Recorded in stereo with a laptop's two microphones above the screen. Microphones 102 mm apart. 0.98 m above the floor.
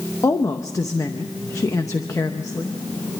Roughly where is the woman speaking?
Left.